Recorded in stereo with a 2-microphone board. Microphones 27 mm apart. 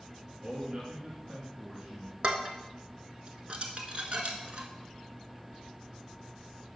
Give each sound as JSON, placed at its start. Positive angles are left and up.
{"t": 0.4, "sound": "a man speaking", "side_deg": -50, "distance_m": 2.0}
{"t": 2.2, "sound": "dishes clattering", "side_deg": -45, "distance_m": 1.2}